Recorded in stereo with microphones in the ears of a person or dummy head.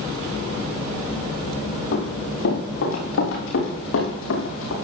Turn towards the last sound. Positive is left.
turn(degrees=75)  # may be behind; listen again after turning